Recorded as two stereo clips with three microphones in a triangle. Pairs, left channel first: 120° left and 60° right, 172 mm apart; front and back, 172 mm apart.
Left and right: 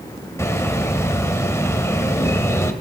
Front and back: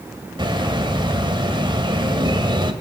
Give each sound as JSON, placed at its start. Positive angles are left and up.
{"t": 0.4, "sound": "a bird", "azimuth_deg": 175, "distance_m": 1.4}